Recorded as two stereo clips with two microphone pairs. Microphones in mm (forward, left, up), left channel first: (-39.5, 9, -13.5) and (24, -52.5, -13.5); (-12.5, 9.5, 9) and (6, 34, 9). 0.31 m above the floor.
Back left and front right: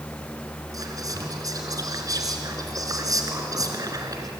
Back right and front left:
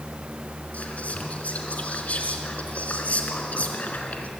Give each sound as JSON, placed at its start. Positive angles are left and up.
{"t": 0.7, "sound": "whispering", "azimuth_deg": -90, "distance_m": 3.5}